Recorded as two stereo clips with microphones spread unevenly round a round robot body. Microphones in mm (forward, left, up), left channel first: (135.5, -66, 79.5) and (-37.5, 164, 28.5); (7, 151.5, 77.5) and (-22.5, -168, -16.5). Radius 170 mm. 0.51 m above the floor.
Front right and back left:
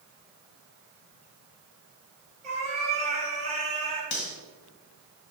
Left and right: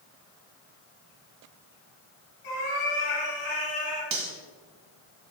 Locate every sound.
2.4 s a cat meowing: 60° left, 4 m
4.1 s cutlery clinking: 60° right, 2 m